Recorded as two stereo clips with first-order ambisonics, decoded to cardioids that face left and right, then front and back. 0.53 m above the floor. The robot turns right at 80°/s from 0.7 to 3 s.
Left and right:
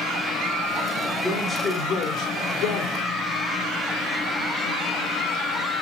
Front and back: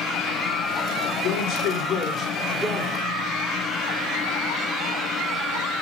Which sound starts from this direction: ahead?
A man speaking, at 1.2 s.